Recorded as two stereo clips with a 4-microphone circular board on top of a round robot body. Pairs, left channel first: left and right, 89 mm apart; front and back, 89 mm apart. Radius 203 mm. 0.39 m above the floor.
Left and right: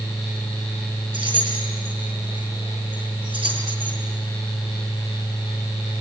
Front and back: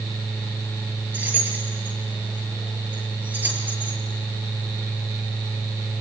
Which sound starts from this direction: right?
Keys jangling, at 1.1 s.